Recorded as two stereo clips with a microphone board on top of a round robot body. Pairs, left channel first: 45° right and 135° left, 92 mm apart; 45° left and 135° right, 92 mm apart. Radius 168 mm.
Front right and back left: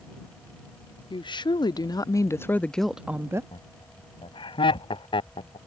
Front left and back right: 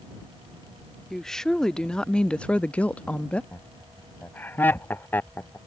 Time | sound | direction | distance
1.1 | a woman speaking | 40° right | ?
3.5 | laughter | 25° right | ?